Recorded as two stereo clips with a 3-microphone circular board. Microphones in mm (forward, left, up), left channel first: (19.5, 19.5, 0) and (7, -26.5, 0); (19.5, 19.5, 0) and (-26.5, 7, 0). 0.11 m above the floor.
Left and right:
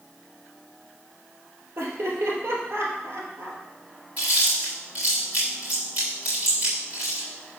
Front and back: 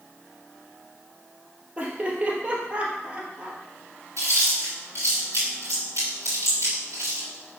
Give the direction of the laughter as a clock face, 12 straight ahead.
4 o'clock.